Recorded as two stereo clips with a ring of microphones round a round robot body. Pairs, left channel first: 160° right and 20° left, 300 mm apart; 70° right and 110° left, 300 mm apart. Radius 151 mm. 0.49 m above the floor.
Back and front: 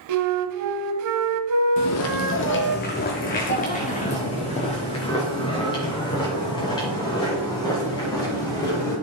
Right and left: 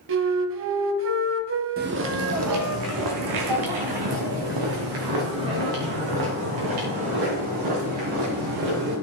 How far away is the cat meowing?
I don't hear a cat meowing.